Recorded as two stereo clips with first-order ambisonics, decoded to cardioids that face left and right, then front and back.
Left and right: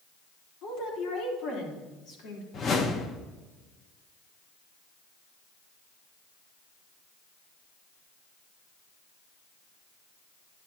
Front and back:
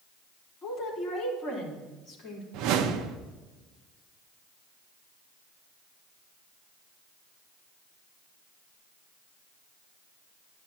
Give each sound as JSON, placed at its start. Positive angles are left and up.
{"t": 0.6, "sound": "a woman speaking", "azimuth_deg": 65, "distance_m": 4.0}
{"t": 2.5, "sound": "a whoosh", "azimuth_deg": 150, "distance_m": 0.9}